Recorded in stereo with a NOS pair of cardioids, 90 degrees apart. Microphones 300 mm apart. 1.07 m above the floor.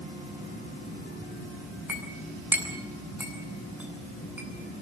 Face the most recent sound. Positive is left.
turn(degrees=-5)